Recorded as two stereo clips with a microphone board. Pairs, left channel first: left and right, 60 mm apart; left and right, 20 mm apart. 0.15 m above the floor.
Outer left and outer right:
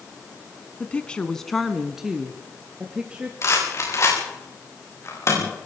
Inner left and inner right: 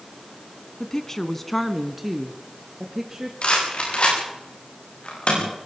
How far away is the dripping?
No dripping in this recording.